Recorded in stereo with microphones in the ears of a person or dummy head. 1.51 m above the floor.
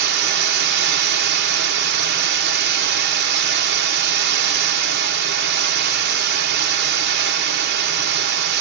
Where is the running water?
55° right (ahead or behind), 0.9 m.